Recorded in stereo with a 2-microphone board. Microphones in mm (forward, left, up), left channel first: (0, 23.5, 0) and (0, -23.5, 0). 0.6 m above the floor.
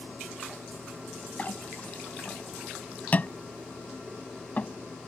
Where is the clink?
35° left (ahead or behind).